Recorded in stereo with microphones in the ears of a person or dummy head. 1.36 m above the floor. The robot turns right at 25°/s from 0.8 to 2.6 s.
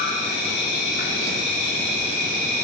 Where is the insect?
90° left, 1.3 m; by 2.6 s 135° left, 1.3 m.